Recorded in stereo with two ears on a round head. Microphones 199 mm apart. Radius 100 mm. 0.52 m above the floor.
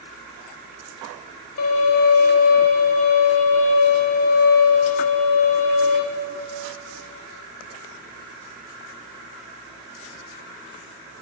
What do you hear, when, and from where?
1.6 s a violin: 65° left (ahead or behind), 1.0 m